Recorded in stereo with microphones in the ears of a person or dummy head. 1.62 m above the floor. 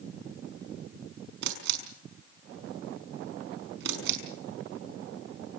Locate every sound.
1.4 s a camera shutter: 60° right (ahead or behind), 5.5 m